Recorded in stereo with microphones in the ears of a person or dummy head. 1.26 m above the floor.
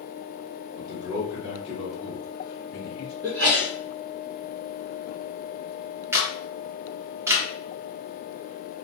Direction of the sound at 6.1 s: 15° right (ahead or behind).